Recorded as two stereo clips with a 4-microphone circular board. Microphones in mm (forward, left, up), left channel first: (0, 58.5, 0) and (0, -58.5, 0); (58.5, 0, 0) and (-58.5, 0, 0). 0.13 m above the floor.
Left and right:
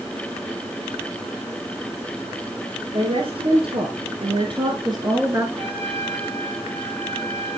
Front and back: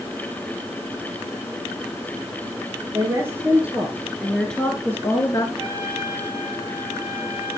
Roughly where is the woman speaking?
Behind right.